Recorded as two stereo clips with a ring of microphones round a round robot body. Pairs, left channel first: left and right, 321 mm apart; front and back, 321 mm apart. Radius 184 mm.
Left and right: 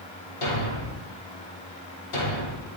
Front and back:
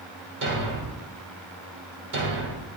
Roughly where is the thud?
Behind left.